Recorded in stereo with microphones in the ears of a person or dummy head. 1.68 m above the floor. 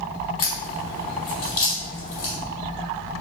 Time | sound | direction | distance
0.4 | a crack | 55° left (ahead or behind) | 2.5 m